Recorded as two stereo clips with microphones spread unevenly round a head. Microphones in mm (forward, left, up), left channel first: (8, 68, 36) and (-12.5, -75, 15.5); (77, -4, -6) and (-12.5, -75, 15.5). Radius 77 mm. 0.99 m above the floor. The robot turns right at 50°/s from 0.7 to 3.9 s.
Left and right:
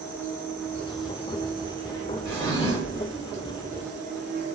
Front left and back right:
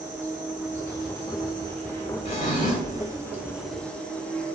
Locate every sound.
0.0 s an insect: 155° left, 0.9 m; by 4.5 s 45° right, 0.9 m
2.2 s a drawer: 5° left, 1.3 m; by 3.1 s 45° left, 1.3 m